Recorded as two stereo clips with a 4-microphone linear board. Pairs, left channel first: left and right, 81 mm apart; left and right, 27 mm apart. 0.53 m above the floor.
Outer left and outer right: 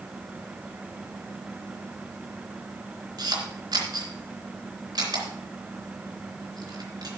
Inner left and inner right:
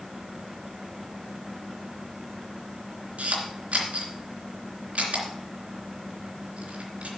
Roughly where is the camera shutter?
Right.